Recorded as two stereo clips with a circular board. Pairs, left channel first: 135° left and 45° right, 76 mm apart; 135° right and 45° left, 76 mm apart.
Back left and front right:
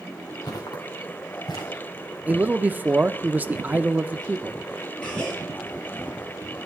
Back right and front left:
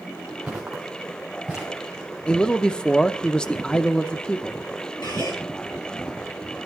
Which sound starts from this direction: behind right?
A gasp, at 5.0 s.